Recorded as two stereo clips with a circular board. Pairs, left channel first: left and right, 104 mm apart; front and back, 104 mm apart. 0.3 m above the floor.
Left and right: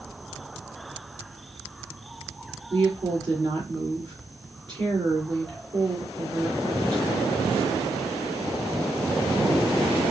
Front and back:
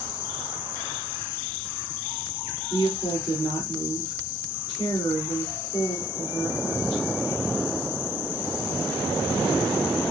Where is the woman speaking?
50° right, 3 m.